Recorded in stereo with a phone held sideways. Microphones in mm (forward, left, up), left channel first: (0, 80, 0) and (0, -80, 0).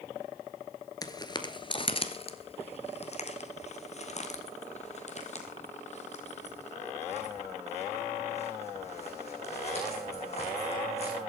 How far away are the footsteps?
About 1.4 m.